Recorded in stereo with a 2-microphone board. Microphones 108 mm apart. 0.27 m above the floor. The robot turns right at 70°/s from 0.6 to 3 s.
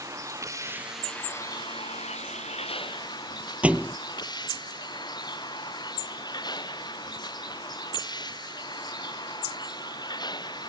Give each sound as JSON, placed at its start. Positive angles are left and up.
{"t": 0.0, "sound": "a vehicle", "azimuth_deg": -30}
{"t": 3.6, "sound": "a thud", "side_deg": -10}